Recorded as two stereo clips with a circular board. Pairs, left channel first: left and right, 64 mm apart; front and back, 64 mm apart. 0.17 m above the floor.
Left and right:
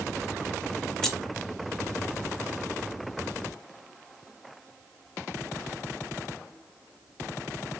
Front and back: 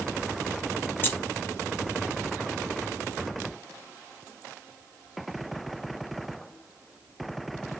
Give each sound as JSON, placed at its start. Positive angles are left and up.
{"t": 1.0, "sound": "keys jangling", "azimuth_deg": 15, "distance_m": 0.8}